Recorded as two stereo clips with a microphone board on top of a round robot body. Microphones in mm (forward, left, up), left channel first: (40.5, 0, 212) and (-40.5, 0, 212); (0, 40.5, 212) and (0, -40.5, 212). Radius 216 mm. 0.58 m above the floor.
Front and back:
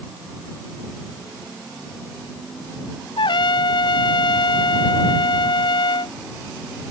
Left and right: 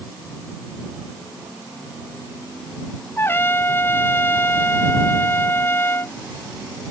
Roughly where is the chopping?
I don't hear chopping.